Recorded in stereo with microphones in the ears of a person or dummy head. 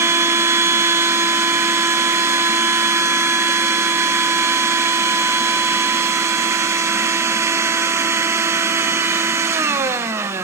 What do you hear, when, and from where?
0.0 s a machine running: 15° right (ahead or behind), 0.8 m